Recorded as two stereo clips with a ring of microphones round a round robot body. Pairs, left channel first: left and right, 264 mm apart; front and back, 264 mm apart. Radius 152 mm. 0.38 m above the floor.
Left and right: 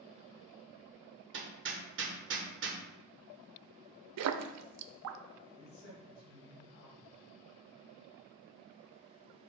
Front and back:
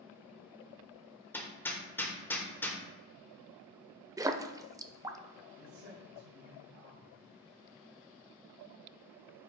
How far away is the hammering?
About 1.2 m.